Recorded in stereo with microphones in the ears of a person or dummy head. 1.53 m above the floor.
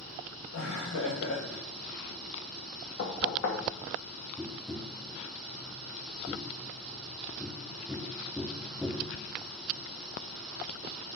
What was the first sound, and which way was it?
Laughter, 90° left.